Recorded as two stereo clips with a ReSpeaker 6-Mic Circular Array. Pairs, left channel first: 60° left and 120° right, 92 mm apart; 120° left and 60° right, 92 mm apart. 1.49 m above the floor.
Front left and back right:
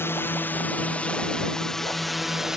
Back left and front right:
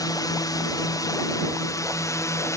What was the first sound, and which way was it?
A drone, 110° left.